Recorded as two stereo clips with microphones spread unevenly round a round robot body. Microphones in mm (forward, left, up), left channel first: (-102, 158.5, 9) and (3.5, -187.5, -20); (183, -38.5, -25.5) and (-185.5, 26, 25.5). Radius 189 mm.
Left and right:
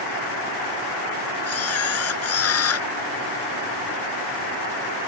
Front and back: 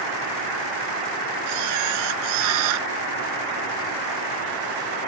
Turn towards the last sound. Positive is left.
turn(degrees=160)